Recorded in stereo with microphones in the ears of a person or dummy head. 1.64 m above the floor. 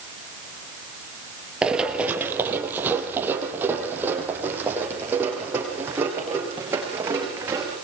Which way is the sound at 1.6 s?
10° right (ahead or behind).